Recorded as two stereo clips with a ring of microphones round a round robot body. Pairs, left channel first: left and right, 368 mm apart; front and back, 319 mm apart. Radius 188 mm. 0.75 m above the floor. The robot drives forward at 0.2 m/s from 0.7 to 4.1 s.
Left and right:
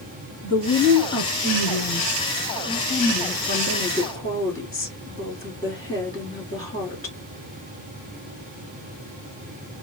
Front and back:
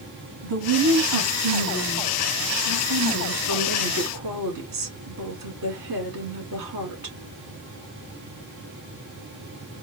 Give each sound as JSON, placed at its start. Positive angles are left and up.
{"t": 0.4, "sound": "a woman speaking", "azimuth_deg": 165, "distance_m": 2.0}